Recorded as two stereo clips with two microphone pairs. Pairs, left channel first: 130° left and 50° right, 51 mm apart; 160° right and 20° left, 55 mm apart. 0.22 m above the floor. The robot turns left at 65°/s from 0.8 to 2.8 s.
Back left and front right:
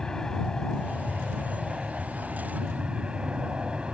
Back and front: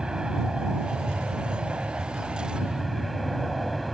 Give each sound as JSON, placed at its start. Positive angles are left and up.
{"t": 0.0, "sound": "an aircraft", "azimuth_deg": 70}